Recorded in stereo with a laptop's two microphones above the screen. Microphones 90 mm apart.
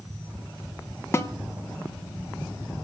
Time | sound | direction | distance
1.1 | a snare drum | 30° left (ahead or behind) | 0.8 m